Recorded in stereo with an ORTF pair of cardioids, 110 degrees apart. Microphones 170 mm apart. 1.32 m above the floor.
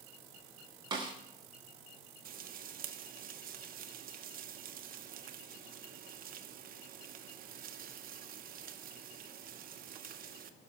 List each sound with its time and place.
0.9 s a snare drum: 25° right, 2 m
2.2 s frying: 55° right, 0.9 m